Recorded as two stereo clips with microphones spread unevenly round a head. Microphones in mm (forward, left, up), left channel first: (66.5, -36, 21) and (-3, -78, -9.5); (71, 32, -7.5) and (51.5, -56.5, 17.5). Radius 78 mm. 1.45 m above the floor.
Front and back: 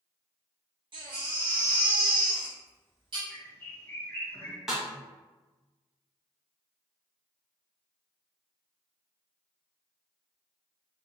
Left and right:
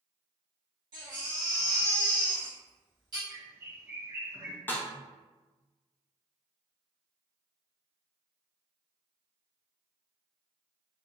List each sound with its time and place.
0.9 s a baby crying: 120° right, 1.3 m
3.3 s a bird: 40° right, 1.2 m
4.7 s a snare drum: straight ahead, 0.7 m